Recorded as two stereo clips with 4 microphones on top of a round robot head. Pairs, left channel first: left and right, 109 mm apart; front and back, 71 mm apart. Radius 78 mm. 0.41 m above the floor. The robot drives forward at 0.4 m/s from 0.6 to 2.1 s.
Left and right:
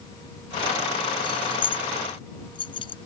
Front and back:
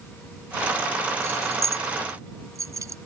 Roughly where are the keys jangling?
Behind left.